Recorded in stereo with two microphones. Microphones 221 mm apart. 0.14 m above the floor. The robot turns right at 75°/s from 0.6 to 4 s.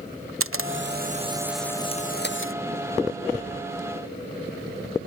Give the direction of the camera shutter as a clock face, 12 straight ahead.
2 o'clock.